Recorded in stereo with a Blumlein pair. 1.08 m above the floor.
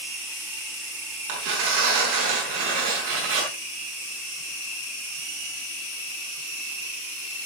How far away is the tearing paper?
About 5 m.